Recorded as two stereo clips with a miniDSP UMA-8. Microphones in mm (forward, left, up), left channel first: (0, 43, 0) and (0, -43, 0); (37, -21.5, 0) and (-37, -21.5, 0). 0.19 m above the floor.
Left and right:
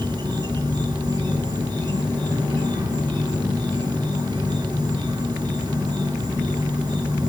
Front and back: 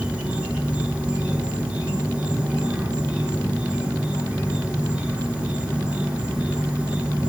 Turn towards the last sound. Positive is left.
turn(degrees=-105)